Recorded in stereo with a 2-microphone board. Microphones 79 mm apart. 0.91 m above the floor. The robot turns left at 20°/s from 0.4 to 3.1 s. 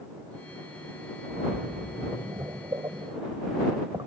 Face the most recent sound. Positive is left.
turn(degrees=-70)  # may be behind; listen again after turning